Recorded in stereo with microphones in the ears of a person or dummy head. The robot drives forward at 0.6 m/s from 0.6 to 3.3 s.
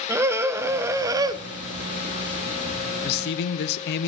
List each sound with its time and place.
0.1 s a scream: 15° right (ahead or behind), 1.3 m; by 1.4 s 25° right (ahead or behind), 0.8 m
3.0 s a man speaking: 55° left (ahead or behind), 1.2 m; by 4.1 s 60° left (ahead or behind), 1.1 m